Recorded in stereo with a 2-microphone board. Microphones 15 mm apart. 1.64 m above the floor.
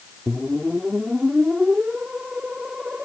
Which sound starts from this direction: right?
A whoosh, at 0.3 s.